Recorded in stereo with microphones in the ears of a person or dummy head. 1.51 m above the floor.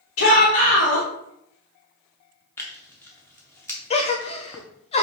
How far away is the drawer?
No drawer in this recording.